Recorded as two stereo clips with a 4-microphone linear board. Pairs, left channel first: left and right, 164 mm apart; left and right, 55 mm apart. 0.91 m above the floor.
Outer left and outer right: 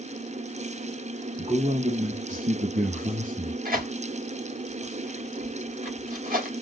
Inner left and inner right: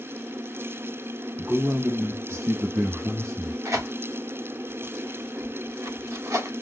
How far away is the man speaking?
About 0.9 m.